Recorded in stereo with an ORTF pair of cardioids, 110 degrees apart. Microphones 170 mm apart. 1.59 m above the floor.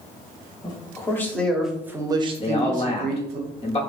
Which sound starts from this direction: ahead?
A man speaking, at 0.6 s.